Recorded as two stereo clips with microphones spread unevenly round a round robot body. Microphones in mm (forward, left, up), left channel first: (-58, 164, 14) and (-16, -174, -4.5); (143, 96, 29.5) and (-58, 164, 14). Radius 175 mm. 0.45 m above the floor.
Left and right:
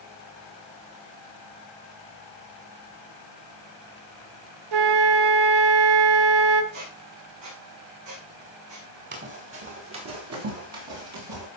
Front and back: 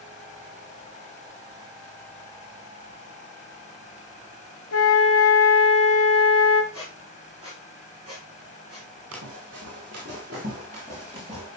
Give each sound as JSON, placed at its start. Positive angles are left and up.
{"t": 4.7, "sound": "a flute", "azimuth_deg": -60, "distance_m": 1.0}
{"t": 6.7, "sound": "a squeak", "azimuth_deg": -125, "distance_m": 7.5}
{"t": 9.1, "sound": "running footsteps", "azimuth_deg": -145, "distance_m": 5.5}